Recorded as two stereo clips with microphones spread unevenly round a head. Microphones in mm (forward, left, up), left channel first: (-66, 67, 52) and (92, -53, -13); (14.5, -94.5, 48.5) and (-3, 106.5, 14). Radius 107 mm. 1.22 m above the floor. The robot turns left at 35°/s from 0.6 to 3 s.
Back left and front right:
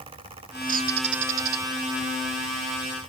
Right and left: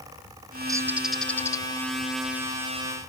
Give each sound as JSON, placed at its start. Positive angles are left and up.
{"t": 0.7, "sound": "a bird", "azimuth_deg": 20}